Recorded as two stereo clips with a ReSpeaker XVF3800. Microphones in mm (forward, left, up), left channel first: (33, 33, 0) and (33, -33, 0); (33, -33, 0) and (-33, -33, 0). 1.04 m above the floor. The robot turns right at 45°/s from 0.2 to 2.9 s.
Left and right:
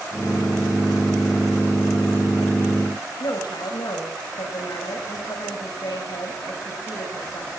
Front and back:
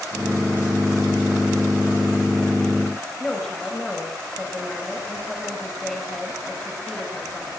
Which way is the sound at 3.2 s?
90° left.